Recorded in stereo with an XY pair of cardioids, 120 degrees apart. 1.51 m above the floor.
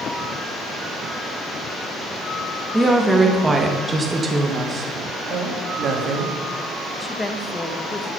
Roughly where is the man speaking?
Ahead right.